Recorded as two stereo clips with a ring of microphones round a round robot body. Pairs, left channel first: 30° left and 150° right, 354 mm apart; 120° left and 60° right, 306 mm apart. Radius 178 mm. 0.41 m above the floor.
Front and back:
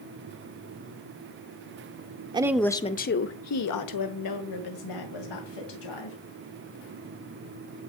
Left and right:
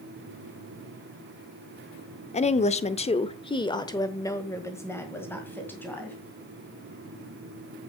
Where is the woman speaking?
155° left, 0.8 m; by 6.2 s 35° left, 2.5 m.